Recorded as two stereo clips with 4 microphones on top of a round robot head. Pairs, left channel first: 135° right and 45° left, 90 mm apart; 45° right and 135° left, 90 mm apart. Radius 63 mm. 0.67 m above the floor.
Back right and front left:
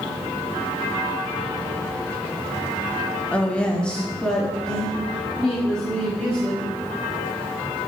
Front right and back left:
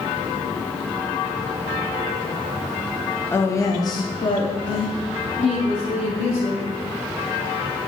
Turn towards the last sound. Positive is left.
turn(degrees=-50)